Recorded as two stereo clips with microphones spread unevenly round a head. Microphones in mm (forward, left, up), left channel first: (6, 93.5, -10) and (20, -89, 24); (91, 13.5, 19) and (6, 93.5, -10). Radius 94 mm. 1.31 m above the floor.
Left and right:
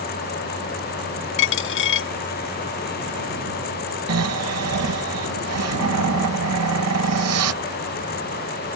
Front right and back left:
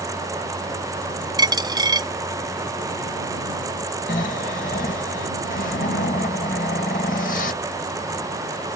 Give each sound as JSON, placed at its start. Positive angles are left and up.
{"t": 1.4, "sound": "a dropped coin", "azimuth_deg": 75}
{"t": 4.1, "sound": "snoring", "azimuth_deg": -95}